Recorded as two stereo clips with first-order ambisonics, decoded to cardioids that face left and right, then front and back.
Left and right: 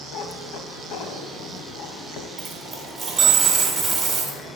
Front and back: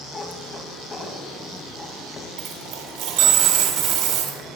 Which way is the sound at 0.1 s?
70° left.